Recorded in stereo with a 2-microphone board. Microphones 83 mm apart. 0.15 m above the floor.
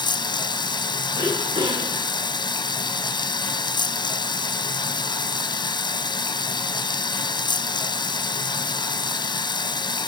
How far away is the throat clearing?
About 5 m.